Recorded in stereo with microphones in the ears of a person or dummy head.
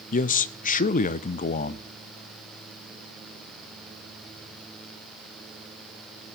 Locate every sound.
0.1 s a man speaking: 45° left (ahead or behind), 0.5 m